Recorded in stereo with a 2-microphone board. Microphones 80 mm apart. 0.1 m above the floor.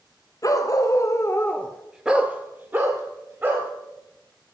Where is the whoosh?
No whoosh in this recording.